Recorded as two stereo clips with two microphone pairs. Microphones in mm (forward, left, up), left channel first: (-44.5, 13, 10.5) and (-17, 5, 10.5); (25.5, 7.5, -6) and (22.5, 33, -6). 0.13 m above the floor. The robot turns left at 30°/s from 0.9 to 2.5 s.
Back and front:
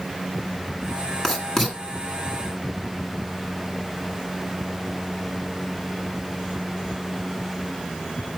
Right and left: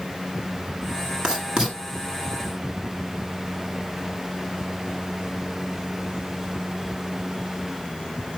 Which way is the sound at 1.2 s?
105° left.